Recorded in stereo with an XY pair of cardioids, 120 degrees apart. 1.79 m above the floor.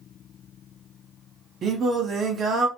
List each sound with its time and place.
1.6 s singing: 50° right, 1.1 m